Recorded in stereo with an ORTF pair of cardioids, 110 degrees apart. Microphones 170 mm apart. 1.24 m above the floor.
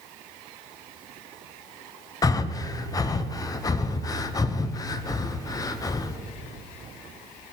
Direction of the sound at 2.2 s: 20° left.